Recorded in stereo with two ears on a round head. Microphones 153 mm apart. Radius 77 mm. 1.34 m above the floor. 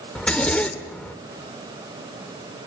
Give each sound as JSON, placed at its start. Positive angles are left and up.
{"t": 0.1, "sound": "a zipper", "side_deg": 5, "distance_m": 1.6}